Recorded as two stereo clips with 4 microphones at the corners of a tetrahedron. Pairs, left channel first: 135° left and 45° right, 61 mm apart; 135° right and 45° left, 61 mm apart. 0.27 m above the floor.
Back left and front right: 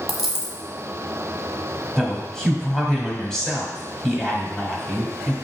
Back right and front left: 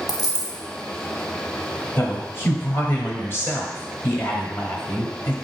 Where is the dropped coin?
135° right, 0.9 m.